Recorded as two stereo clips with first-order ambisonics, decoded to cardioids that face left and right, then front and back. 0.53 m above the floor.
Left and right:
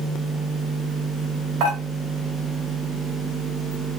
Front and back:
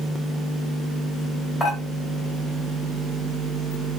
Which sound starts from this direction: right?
Dishes clattering, at 1.6 s.